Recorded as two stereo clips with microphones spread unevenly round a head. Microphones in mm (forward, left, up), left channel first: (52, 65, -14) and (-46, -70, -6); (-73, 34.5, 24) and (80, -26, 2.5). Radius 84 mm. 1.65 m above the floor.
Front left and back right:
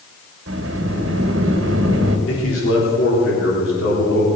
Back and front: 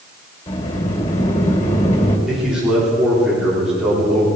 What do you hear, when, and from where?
0.5 s a sliding door: 150° right, 2.5 m
2.3 s a man speaking: 65° left, 4 m